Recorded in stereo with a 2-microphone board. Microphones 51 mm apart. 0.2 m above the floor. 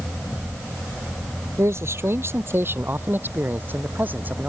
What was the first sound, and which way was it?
A man speaking, 55° right (ahead or behind).